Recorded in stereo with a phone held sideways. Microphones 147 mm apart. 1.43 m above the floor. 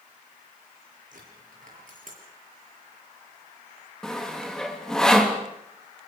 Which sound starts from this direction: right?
A dropped coin, at 1.1 s.